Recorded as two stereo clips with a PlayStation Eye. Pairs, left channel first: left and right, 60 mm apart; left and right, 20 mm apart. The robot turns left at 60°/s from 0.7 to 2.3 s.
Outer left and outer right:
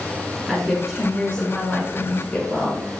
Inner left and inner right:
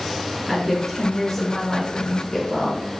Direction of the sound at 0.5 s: Centre (ahead or behind).